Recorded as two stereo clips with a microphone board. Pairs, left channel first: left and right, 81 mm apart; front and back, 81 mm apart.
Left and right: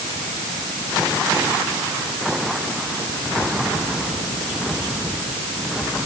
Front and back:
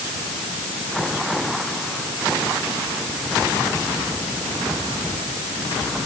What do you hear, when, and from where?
Only background noise.